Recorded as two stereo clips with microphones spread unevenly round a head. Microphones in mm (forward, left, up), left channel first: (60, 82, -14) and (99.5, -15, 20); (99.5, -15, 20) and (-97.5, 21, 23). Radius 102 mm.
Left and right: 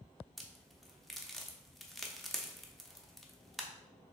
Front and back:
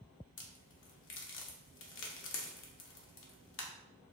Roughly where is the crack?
Ahead.